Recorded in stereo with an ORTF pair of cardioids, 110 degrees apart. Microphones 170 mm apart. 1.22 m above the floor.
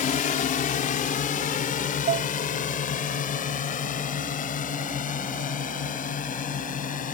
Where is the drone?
55° left; by 7.1 s 50° left.